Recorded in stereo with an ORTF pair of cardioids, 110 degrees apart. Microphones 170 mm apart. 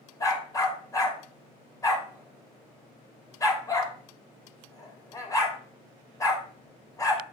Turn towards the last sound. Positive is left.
turn(degrees=20)